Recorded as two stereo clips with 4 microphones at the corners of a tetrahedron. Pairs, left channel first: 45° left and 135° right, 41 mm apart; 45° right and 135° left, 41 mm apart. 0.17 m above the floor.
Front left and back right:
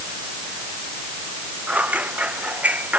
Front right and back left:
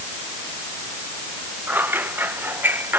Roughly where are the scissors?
Behind.